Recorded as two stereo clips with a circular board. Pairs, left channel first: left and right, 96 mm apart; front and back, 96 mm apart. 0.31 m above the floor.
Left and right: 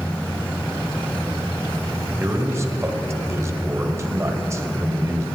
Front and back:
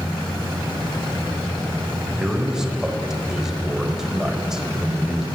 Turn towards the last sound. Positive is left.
turn(degrees=-100)